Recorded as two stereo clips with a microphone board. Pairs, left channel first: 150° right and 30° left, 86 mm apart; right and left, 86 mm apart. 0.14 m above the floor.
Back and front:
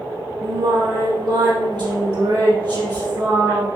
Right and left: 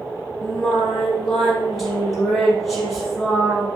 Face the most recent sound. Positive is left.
turn(degrees=0)